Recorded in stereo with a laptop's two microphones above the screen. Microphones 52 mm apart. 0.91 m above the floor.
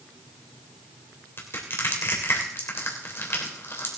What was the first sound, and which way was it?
Crushing, 50° left (ahead or behind).